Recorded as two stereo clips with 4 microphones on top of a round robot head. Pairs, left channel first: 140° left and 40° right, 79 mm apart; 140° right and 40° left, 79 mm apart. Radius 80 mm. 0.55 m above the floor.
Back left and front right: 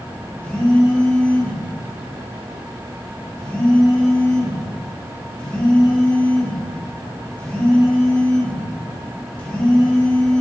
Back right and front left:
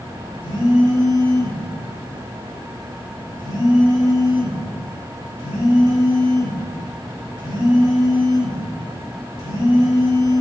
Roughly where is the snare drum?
No snare drum in this recording.